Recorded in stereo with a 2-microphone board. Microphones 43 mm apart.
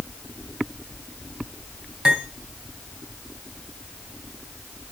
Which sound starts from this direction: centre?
Cutlery clinking, at 2.0 s.